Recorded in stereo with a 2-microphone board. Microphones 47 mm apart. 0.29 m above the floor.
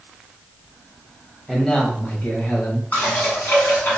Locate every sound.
1.5 s a man speaking: 10° left (ahead or behind), 1.1 m; by 2.8 s 55° left (ahead or behind), 1.4 m
2.9 s dishes clattering: 45° left (ahead or behind), 1.7 m